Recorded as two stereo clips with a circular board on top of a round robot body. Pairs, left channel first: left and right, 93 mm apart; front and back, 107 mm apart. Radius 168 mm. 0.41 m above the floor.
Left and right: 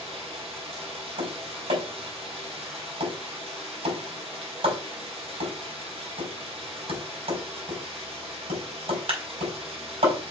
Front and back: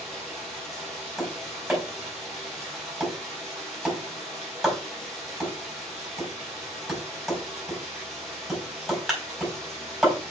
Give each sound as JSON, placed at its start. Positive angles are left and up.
{"t": 0.0, "sound": "running water", "azimuth_deg": -85, "distance_m": 4.0}
{"t": 1.2, "sound": "tapping", "azimuth_deg": -90, "distance_m": 5.0}